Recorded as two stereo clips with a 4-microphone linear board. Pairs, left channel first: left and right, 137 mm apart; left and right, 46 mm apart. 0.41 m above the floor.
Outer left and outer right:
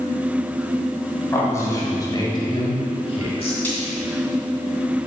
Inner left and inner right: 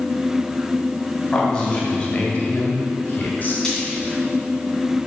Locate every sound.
1.3 s a man speaking: 20° left (ahead or behind), 2.5 m; by 3.5 s 45° left (ahead or behind), 1.5 m
3.6 s frying: 15° left (ahead or behind), 2.5 m